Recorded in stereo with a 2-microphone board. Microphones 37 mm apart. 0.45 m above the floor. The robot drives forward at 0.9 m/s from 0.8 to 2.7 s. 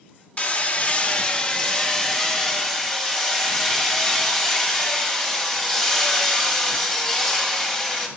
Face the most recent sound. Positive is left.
turn(degrees=15)  # may be behind; listen again after turning